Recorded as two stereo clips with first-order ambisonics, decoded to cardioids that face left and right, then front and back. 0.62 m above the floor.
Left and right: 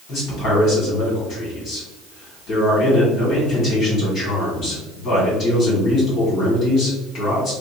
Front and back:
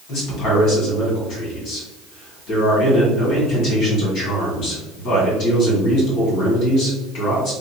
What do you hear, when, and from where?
0.1 s a man speaking: 35° left, 2.0 m